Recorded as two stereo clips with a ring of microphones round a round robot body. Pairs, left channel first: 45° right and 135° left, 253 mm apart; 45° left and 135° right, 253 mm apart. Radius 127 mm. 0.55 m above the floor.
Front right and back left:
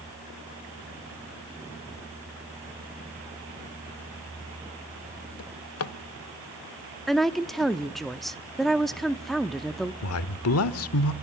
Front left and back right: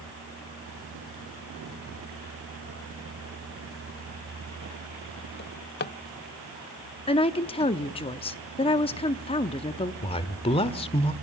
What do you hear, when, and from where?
5.4 s a drawer: 10° right, 0.8 m
7.1 s a woman speaking: 45° left, 0.8 m
10.0 s a man speaking: 20° right, 1.4 m